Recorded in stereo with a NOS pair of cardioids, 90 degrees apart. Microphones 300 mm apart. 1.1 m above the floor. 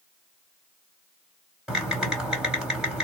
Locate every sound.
1.7 s typing on a keyboard: straight ahead, 2.5 m